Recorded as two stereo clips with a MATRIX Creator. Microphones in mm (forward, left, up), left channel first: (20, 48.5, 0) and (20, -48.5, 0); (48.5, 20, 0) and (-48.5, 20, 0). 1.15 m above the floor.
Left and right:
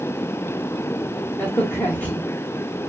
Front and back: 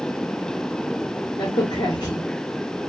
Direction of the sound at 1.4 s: 30° left.